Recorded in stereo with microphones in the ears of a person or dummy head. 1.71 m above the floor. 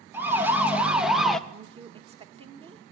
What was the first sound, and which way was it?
A siren, 10° right (ahead or behind).